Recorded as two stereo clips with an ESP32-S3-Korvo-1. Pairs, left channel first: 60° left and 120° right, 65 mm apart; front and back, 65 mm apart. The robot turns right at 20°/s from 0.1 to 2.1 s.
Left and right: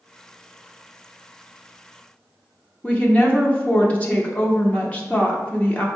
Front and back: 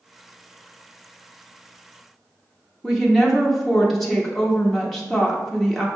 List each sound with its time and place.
2.8 s a woman speaking: 85° left, 0.8 m